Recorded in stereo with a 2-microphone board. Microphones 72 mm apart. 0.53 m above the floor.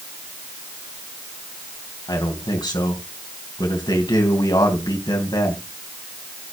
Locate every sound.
2.1 s a man speaking: 80° left, 3.5 m